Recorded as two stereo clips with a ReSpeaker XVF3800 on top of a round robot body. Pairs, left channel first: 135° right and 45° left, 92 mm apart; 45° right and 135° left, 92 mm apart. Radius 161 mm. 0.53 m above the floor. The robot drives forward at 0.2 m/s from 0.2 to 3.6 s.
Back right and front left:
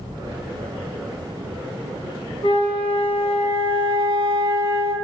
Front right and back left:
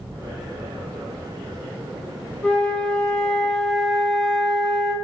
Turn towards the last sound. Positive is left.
turn(degrees=-130)